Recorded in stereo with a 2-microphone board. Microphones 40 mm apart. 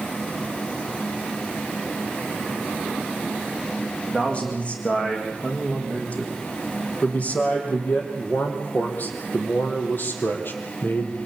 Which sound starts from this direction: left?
A man speaking, at 4.1 s.